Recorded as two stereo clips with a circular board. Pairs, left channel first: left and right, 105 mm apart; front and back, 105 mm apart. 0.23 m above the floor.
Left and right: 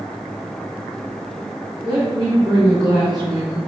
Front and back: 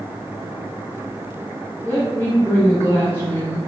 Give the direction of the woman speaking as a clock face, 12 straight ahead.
2 o'clock.